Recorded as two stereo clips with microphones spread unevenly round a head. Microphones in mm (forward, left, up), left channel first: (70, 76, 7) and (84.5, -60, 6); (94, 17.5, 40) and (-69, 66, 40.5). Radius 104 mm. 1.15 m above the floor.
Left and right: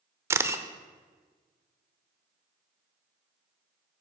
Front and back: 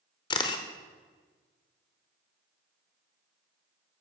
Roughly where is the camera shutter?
Ahead right.